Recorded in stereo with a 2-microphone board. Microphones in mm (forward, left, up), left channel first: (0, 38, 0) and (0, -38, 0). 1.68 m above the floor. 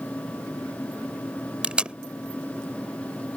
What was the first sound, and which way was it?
Tape being pulled, 15° right (ahead or behind).